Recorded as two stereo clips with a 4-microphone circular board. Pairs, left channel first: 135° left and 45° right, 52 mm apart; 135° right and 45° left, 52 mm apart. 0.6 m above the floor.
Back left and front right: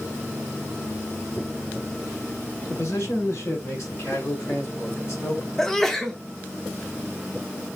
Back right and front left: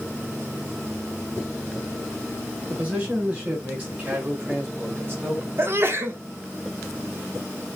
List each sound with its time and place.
2.7 s a man speaking: 105° left, 7 m; by 5.5 s 95° left, 4.5 m
5.6 s a sneeze: 55° left, 1.4 m